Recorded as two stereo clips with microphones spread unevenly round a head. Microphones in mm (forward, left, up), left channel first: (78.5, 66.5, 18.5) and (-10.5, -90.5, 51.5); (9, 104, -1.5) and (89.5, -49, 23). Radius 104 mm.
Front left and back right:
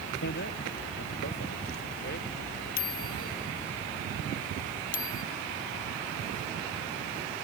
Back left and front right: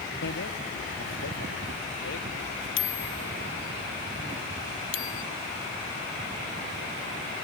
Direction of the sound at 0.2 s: 100° left.